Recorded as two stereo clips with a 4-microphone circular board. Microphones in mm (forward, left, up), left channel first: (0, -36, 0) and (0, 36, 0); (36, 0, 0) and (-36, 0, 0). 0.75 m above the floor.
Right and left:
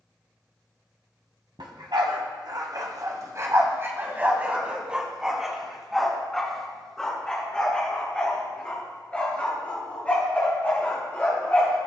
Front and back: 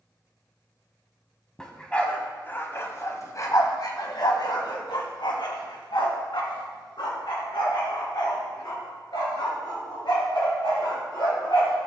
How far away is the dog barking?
About 2.0 m.